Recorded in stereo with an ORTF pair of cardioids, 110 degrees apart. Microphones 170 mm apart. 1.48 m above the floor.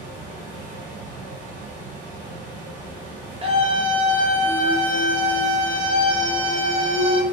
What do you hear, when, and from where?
0.0 s a fan: 65° right, 1.1 m
3.4 s a scream: 35° right, 0.9 m